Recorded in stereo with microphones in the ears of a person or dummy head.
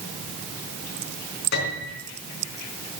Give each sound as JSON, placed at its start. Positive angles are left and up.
{"t": 1.5, "sound": "a piano", "side_deg": 60, "distance_m": 4.0}